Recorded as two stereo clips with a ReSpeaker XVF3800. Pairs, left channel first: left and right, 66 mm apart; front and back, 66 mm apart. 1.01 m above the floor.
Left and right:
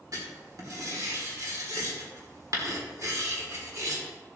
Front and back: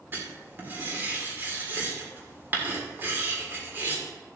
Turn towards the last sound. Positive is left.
turn(degrees=-120)